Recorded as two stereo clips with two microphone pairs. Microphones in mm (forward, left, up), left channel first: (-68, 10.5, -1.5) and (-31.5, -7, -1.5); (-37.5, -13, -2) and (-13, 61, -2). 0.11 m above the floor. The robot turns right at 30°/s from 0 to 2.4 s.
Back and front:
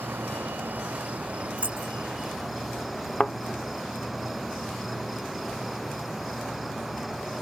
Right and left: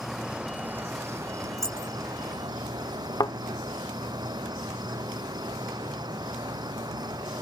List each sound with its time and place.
0.0 s an insect: 15° right; by 7.4 s 60° left
1.6 s keys jangling: 75° right; by 1.9 s 60° right
3.2 s a thud: 140° right